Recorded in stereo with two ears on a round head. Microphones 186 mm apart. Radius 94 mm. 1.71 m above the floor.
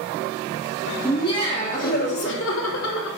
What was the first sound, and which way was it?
Laughter, 15° left (ahead or behind).